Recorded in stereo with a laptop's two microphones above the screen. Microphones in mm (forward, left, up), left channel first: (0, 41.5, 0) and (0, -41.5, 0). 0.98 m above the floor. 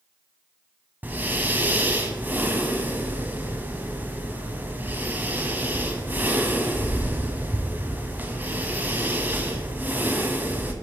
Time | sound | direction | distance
1.0 | breathing | 20° right (ahead or behind) | 1.2 m